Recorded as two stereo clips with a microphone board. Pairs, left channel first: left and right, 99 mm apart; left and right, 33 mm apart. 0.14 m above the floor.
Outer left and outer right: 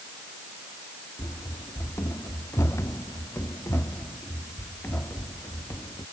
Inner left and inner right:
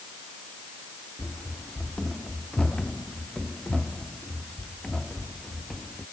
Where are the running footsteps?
30° left (ahead or behind).